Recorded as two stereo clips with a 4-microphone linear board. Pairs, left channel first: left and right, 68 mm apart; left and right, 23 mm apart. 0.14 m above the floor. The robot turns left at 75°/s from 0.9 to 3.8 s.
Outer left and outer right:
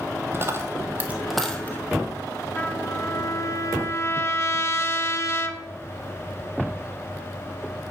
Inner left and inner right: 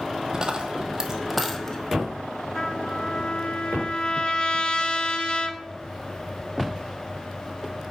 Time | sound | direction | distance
0.3 | a dropped coin | 35° right (ahead or behind) | 0.7 m
2.5 | a trumpet | 150° left | 0.6 m